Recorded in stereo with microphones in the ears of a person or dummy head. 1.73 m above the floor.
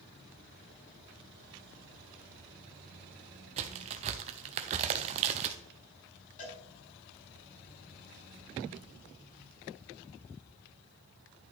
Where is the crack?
35° right (ahead or behind), 0.8 m.